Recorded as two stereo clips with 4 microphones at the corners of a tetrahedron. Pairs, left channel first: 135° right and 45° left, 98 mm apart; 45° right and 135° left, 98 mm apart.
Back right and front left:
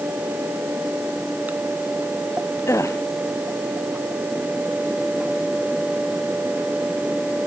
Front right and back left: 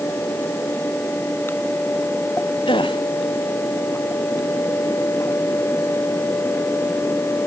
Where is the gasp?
75° right.